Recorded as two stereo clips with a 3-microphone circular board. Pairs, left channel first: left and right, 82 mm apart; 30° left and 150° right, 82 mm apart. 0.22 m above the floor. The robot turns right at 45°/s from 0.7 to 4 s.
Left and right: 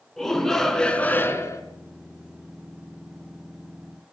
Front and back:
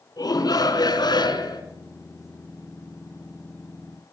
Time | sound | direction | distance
0.2 | a shout | 5° left | 3 m